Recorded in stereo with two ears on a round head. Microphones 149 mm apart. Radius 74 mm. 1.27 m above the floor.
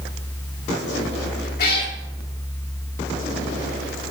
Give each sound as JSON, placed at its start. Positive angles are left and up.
{"t": 1.6, "sound": "a cat meowing", "side_deg": 60, "distance_m": 1.3}